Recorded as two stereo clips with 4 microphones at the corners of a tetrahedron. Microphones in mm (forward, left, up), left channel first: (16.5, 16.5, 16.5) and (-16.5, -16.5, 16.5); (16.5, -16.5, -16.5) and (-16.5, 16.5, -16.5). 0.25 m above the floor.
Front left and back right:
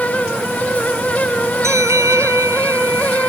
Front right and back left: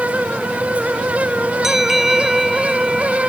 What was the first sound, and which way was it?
A bell, 140° right.